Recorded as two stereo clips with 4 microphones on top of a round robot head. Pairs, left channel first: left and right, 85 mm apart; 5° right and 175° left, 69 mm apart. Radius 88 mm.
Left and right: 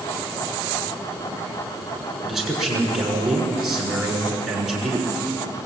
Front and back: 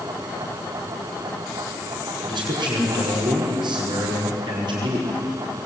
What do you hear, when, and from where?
2.2 s a man speaking: straight behind, 6.5 m